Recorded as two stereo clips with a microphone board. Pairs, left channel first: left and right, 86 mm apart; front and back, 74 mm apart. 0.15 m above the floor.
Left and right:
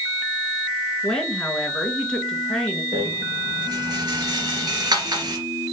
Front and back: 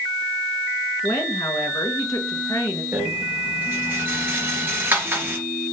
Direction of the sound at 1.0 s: 10° left.